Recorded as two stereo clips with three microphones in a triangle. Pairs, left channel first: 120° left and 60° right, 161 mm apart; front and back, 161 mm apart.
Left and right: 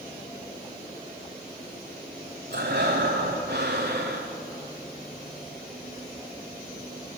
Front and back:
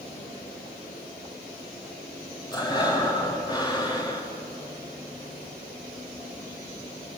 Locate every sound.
2.5 s breathing: 65° right, 5 m